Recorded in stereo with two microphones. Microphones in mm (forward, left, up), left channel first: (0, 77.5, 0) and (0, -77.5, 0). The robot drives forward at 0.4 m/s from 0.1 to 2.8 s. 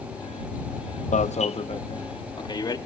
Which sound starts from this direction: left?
An alarm, at 1.1 s.